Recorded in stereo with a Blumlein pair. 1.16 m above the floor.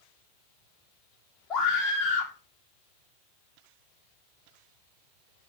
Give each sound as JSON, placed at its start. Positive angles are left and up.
{"t": 1.5, "sound": "a scream", "azimuth_deg": 25, "distance_m": 0.7}